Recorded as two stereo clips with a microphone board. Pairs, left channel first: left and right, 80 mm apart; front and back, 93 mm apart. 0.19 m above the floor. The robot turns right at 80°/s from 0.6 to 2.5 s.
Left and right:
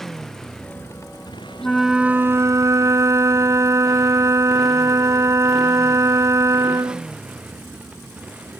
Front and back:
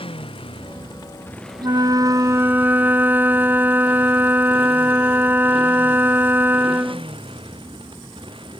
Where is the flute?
170° left; by 7.1 s 120° right.